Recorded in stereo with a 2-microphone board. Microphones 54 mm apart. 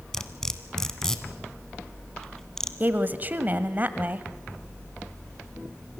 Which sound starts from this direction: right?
A woman speaking, at 2.8 s.